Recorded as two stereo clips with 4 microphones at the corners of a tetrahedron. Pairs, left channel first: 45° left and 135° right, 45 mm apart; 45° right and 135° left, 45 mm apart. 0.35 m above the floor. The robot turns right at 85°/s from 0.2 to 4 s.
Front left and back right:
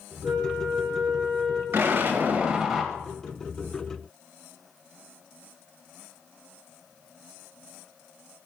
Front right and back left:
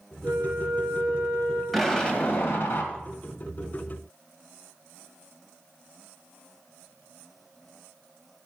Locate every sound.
0.2 s a flute: 175° left, 4.5 m; by 1.6 s 65° right, 4.5 m
1.7 s an explosion: 135° right, 1.9 m; by 2.9 s 35° right, 1.9 m